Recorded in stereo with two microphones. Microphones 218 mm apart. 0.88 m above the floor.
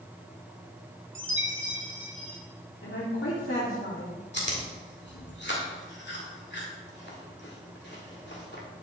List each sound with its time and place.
1.1 s a chime: 60° right (ahead or behind), 1.6 m
2.8 s a woman speaking: 65° left (ahead or behind), 2.5 m
4.3 s chewing: 55° left (ahead or behind), 2 m